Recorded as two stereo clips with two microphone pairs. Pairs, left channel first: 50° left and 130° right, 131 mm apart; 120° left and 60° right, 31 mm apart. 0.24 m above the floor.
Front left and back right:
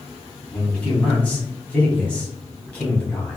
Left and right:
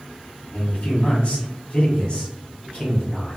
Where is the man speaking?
130° left, 1.2 m.